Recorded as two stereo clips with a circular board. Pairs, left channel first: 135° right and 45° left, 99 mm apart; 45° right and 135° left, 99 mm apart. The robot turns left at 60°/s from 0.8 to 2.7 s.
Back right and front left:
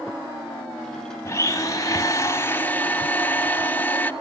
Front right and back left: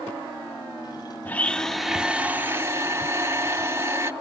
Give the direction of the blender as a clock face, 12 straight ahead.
3 o'clock.